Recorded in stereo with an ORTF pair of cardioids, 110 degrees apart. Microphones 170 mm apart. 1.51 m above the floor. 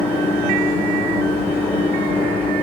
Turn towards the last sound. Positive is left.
turn(degrees=10)